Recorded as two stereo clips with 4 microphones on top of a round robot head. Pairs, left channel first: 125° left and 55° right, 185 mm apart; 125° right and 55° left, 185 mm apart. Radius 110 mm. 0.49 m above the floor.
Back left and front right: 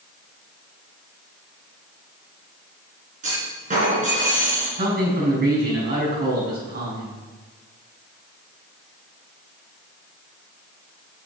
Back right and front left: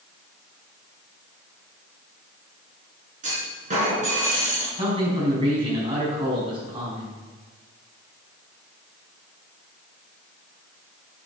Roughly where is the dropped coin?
I don't hear a dropped coin.